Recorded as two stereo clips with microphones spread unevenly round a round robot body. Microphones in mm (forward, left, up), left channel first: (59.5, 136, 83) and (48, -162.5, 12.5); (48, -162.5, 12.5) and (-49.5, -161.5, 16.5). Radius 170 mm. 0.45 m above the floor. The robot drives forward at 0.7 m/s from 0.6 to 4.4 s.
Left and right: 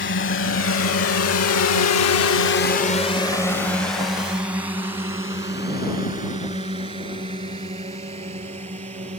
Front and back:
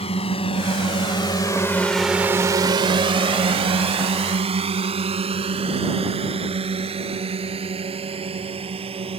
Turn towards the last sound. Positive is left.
turn(degrees=-165)